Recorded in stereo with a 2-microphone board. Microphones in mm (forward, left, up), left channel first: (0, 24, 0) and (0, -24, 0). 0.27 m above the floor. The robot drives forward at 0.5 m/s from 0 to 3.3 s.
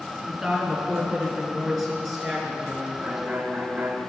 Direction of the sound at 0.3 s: 5° right (ahead or behind).